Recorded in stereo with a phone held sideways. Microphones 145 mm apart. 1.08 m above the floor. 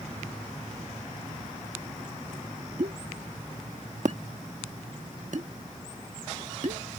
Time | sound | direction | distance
2.8 | a pop | 65° right (ahead or behind) | ?